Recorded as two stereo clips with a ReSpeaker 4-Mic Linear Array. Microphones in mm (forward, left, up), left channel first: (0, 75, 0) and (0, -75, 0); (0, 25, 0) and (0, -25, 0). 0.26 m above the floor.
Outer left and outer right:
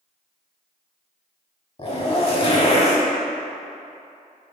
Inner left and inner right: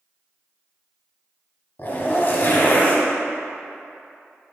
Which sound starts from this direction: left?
A zipper, at 1.8 s.